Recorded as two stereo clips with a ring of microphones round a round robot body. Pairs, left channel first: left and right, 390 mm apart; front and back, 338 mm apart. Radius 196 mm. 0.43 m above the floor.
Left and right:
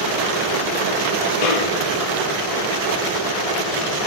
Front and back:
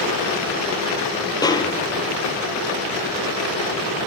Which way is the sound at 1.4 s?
80° left.